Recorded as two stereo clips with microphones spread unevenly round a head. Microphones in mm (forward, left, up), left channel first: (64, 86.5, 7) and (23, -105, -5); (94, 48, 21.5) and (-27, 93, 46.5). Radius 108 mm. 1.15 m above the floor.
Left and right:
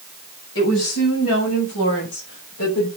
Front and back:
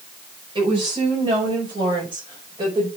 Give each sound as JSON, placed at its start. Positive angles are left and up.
{"t": 0.6, "sound": "a woman speaking", "azimuth_deg": 110, "distance_m": 7.0}